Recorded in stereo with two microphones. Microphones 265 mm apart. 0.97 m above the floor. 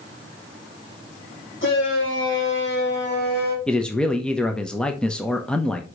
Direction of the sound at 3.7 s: 5° left (ahead or behind).